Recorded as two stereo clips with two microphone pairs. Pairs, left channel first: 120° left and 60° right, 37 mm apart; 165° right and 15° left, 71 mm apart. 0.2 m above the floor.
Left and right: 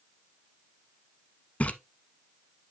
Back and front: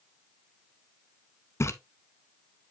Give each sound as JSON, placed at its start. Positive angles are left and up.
{"t": 1.6, "sound": "a splash", "azimuth_deg": 160, "distance_m": 0.8}